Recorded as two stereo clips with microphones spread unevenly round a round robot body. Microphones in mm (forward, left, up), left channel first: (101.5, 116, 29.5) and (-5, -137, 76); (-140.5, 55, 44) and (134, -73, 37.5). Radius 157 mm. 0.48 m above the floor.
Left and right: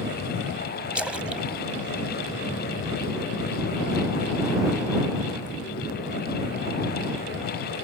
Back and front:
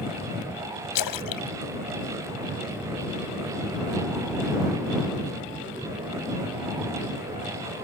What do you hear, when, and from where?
0.9 s a splash: 155° left